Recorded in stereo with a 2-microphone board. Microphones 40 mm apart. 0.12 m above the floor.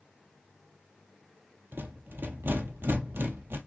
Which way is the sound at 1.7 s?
70° right (ahead or behind).